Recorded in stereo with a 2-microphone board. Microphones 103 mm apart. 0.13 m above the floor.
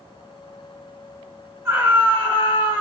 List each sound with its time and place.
1.6 s a scream: 15° right (ahead or behind), 1.9 m